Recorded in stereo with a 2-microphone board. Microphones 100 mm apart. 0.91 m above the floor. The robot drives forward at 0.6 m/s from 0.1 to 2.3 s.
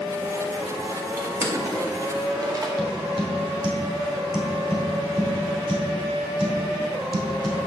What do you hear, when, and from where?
1.2 s crushing: 25° right (ahead or behind), 2 m; by 2.7 s 35° right (ahead or behind), 1.5 m
2.8 s tapping: 45° right (ahead or behind), 2.5 m